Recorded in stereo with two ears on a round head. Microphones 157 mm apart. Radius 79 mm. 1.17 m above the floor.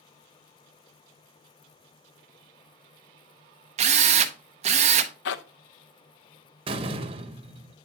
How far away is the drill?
About 0.8 m.